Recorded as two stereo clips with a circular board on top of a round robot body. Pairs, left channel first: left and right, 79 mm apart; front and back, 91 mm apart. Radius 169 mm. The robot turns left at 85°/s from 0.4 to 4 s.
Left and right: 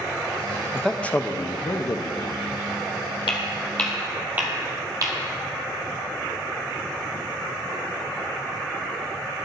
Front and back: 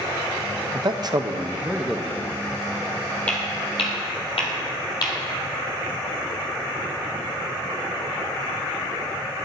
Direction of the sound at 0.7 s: 175° right.